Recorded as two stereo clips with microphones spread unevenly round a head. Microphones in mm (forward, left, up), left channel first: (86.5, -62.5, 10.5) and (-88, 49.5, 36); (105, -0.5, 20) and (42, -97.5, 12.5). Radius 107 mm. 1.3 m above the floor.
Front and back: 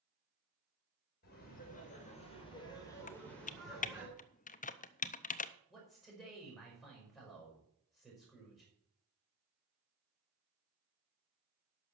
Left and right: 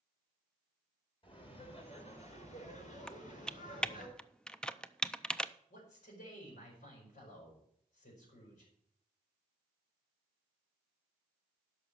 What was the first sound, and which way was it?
Laughter, 15° left.